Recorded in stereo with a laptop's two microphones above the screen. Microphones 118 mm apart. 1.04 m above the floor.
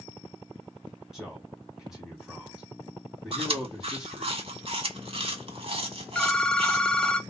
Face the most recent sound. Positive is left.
turn(degrees=5)  # may be behind; listen again after turning